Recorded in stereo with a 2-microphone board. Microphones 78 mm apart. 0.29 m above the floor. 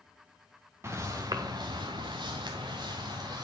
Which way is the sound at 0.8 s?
35° right (ahead or behind).